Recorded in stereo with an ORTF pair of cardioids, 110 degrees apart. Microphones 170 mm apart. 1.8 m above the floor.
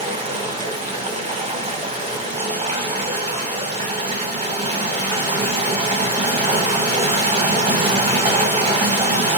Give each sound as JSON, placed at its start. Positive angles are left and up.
{"t": 0.0, "sound": "running water", "azimuth_deg": -35, "distance_m": 1.6}